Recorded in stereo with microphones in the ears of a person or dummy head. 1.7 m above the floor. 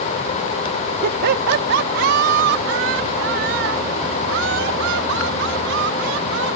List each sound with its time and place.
1.0 s laughter: 50° right (ahead or behind); by 6.5 s 70° right (ahead or behind)